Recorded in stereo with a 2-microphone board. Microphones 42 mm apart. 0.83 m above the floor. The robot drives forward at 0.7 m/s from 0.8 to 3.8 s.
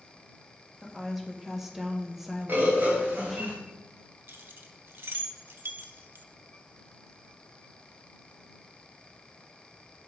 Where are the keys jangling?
65° right (ahead or behind), 0.7 m.